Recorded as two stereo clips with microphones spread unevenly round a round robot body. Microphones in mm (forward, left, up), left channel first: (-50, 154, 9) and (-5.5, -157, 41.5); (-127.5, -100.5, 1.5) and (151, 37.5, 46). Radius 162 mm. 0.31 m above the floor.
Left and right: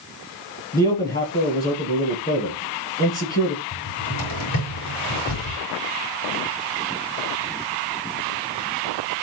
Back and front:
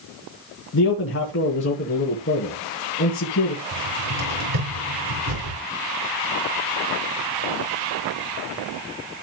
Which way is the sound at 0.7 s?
155° left.